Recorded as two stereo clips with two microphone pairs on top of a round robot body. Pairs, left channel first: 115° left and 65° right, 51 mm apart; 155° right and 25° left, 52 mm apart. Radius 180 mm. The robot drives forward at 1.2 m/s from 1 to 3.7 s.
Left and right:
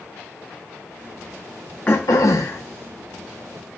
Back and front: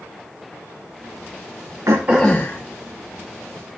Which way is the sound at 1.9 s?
45° left.